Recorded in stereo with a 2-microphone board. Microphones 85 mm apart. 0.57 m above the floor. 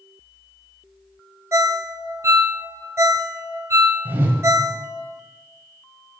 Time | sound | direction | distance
1.5 | a ringtone | 35° right (ahead or behind) | 0.6 m
4.0 | a whoosh | 25° right (ahead or behind) | 1.3 m